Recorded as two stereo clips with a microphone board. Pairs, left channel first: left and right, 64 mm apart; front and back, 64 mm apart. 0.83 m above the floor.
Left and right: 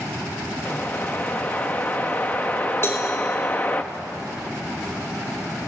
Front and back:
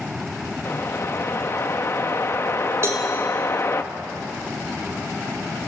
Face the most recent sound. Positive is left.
turn(degrees=135)